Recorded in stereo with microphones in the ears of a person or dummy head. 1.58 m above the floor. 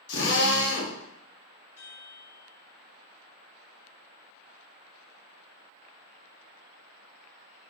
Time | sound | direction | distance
0.1 | a drill | 75° left (ahead or behind) | 1.3 m
1.8 | a chime | 15° left (ahead or behind) | 1.7 m